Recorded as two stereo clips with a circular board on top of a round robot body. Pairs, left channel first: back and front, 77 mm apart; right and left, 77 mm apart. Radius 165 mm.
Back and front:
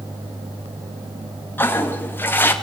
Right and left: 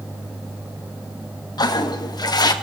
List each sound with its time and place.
1.6 s a toilet flushing: 120° right, 2.5 m